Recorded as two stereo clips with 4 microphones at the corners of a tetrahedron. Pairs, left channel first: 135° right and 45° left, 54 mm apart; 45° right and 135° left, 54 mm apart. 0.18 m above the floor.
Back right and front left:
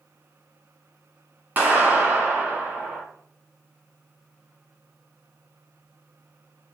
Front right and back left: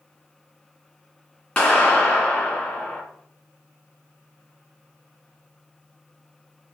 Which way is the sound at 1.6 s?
15° left.